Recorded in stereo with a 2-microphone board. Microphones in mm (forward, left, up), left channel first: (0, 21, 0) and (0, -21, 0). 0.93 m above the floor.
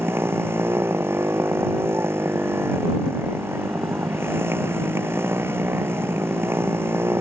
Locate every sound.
0.0 s a motorcycle: 80° right